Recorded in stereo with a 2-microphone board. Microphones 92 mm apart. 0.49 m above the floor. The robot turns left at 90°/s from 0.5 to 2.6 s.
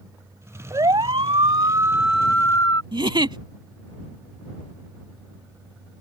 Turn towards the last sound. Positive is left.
turn(degrees=-60)  # may be behind; listen again after turning